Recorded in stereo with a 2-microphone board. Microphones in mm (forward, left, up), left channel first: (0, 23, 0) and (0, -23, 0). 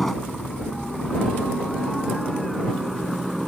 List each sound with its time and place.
0.0 s a helicopter: 5° left (ahead or behind); by 3.5 s 5° right (ahead or behind)